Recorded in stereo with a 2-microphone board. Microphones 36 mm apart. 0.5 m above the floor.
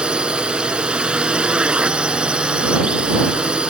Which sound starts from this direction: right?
A drone, at 0.0 s.